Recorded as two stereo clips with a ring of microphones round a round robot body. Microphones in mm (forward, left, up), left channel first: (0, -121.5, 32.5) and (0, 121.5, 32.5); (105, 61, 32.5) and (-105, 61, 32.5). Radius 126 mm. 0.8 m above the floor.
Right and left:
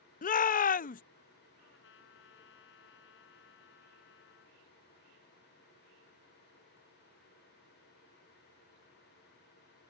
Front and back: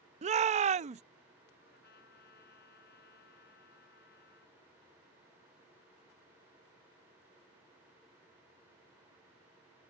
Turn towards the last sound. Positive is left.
turn(degrees=-50)